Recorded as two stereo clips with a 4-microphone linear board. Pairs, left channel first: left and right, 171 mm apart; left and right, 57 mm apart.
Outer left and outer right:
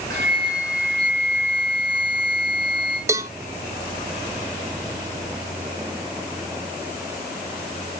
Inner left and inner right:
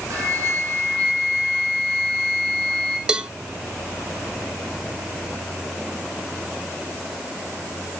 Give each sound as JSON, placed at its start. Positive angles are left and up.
{"t": 0.1, "sound": "a flute", "side_deg": -70, "distance_m": 8.5}
{"t": 3.1, "sound": "a cowbell", "side_deg": -15, "distance_m": 0.6}